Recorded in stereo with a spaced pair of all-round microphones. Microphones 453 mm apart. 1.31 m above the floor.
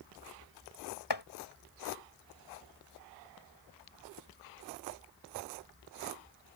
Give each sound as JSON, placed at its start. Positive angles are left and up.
{"t": 1.1, "sound": "chopping", "side_deg": 60}